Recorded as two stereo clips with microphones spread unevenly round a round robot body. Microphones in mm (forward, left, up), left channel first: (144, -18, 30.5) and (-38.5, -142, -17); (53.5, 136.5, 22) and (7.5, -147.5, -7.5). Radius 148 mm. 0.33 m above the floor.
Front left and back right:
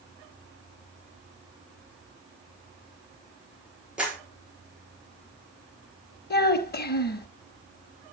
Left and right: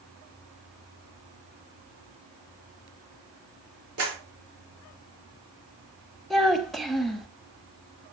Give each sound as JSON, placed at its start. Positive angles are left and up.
{"t": 4.0, "sound": "a clap", "azimuth_deg": -65, "distance_m": 5.5}
{"t": 6.3, "sound": "a child speaking", "azimuth_deg": -10, "distance_m": 0.9}